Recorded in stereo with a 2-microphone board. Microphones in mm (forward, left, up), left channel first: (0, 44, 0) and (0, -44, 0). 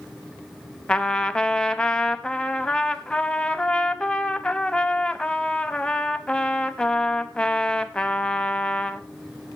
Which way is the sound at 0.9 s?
10° left (ahead or behind).